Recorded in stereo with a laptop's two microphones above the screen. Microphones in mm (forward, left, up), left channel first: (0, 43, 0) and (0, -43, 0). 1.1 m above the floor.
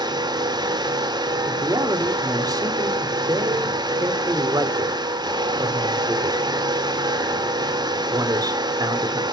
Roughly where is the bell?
No bell in this recording.